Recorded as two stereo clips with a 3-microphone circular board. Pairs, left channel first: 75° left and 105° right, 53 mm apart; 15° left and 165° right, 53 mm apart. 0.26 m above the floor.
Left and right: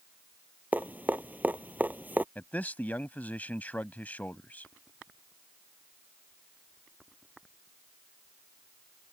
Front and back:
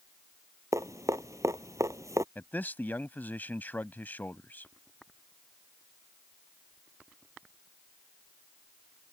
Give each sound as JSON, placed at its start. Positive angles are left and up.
{"t": 0.7, "sound": "dripping", "azimuth_deg": -160}
{"t": 2.4, "sound": "a man speaking", "azimuth_deg": 40}